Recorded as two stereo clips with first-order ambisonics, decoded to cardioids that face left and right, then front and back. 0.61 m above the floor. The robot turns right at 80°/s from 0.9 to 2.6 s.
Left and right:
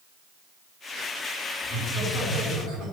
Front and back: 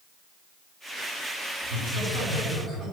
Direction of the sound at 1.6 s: 155° left.